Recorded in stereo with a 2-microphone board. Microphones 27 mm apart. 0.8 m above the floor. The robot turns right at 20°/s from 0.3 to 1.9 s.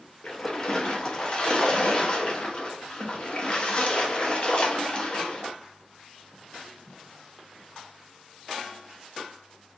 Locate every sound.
0.2 s a splash: 50° left, 0.7 m; by 5.5 s 85° left, 0.7 m